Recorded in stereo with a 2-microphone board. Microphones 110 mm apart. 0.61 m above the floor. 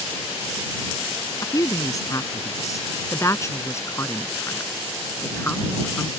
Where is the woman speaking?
35° left (ahead or behind); by 6.1 s 20° left (ahead or behind).